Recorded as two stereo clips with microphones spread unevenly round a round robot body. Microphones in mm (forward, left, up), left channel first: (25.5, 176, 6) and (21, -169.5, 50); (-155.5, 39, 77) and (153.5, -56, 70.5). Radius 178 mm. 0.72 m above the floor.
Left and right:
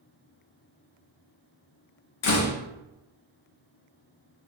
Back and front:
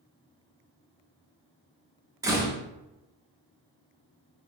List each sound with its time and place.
2.2 s a door slam: 60° left, 0.6 m